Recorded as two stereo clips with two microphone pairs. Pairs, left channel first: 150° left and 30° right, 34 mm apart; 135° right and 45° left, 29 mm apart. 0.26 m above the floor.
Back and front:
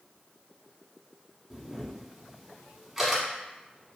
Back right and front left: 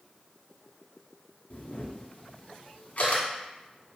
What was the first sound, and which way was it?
A camera shutter, 105° right.